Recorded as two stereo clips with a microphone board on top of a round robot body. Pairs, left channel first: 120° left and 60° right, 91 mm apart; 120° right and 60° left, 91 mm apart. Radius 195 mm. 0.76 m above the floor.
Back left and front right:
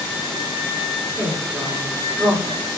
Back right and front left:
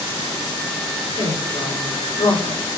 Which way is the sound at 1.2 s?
155° right.